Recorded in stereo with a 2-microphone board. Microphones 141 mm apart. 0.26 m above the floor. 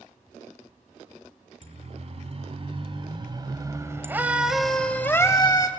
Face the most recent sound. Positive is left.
turn(degrees=30)  # may be behind; listen again after turning